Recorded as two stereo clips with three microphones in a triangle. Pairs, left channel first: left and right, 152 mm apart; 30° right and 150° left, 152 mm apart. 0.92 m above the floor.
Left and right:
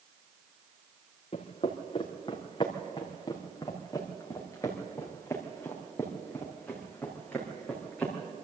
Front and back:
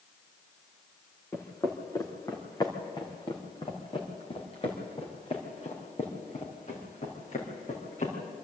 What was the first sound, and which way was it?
Footsteps, 45° left.